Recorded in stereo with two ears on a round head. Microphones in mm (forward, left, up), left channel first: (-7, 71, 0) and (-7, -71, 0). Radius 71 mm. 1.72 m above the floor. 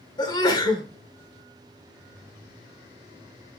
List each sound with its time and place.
0.2 s a sneeze: 25° left (ahead or behind), 0.9 m